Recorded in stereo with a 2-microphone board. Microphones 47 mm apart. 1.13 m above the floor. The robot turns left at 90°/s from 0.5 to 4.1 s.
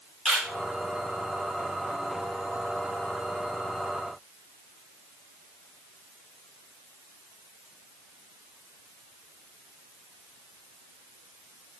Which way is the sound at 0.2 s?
10° right (ahead or behind).